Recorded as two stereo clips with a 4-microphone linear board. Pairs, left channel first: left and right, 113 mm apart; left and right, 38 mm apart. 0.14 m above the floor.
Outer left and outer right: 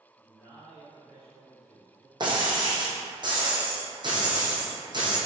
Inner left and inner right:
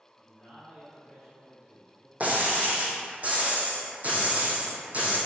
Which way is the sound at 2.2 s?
40° right (ahead or behind).